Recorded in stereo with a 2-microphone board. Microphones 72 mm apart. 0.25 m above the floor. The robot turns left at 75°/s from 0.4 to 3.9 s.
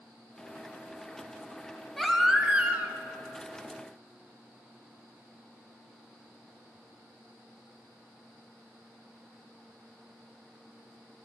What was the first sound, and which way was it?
A baby crying, 10° left.